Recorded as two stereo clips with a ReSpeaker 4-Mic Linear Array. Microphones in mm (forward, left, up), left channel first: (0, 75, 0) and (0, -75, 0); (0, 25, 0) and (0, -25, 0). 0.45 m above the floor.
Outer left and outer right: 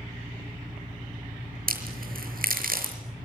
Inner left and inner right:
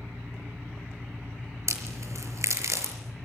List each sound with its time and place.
0.0 s an engine running: 65° right (ahead or behind), 5 m
1.7 s a crack: 75° right (ahead or behind), 6 m